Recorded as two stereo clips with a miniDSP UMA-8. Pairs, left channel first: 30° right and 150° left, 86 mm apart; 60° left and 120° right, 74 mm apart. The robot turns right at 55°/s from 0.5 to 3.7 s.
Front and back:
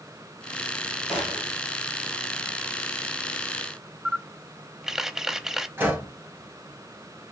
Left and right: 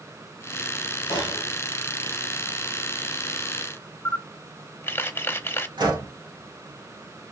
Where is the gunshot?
65° left, 3 m; by 1.5 s 90° left, 3 m.